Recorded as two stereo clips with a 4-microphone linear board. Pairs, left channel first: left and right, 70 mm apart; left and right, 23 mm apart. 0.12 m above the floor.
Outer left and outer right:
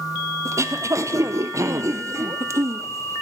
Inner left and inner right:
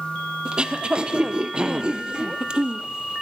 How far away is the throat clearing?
About 1.8 m.